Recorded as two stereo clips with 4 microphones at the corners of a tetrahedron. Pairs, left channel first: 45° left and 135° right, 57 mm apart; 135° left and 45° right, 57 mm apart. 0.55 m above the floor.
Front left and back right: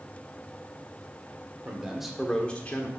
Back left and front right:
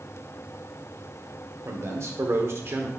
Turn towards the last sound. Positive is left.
turn(degrees=0)